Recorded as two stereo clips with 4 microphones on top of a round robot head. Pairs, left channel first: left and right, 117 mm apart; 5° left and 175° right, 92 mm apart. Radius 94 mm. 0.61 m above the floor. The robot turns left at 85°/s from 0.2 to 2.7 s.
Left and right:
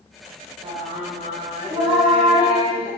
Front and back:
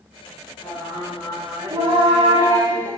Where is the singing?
55° right, 7 m; by 2.9 s 125° left, 7 m.